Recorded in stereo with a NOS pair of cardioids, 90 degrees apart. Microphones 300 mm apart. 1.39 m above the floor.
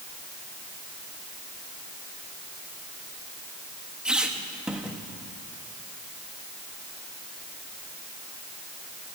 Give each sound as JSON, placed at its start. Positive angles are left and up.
{"t": 4.0, "sound": "a squeak", "azimuth_deg": -5, "distance_m": 1.4}